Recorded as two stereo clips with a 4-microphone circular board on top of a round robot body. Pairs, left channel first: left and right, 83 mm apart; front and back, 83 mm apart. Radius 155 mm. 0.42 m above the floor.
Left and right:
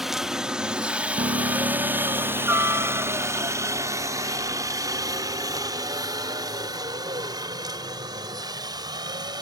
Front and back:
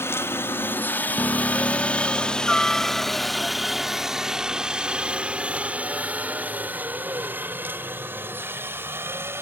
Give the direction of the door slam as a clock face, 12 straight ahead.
No door slam in this recording.